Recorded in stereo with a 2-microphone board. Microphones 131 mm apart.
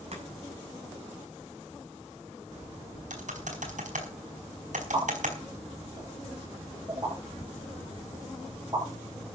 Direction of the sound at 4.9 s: 30° right (ahead or behind).